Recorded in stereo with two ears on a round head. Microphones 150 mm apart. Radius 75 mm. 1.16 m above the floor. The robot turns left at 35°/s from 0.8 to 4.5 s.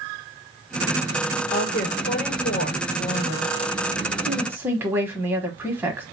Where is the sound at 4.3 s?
20° right (ahead or behind), 0.9 m; by 6.0 s 10° right (ahead or behind), 0.9 m.